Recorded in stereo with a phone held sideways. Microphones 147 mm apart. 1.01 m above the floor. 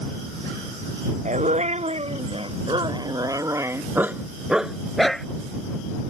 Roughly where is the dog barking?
Right.